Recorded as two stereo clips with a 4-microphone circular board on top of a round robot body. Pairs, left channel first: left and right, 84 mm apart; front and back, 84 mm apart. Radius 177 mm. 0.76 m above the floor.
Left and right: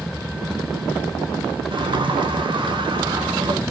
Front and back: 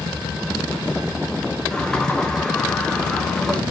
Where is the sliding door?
80° right, 2 m.